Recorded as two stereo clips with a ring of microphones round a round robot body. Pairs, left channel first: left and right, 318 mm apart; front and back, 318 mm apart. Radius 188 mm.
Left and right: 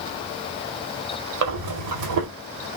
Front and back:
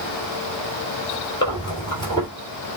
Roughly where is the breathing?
Right.